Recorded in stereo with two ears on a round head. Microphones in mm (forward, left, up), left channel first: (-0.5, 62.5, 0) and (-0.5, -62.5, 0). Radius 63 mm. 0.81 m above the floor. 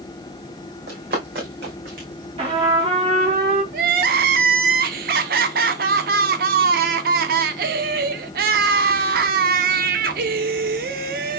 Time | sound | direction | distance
0.9 | running footsteps | 70° right (ahead or behind) | 2.5 m
2.4 | a trumpet | 40° right (ahead or behind) | 2 m
3.7 | crying | 65° right (ahead or behind) | 0.6 m